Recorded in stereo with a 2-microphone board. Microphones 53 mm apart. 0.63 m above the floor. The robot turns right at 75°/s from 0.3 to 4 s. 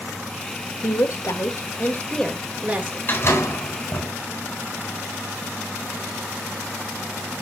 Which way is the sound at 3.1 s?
30° left (ahead or behind).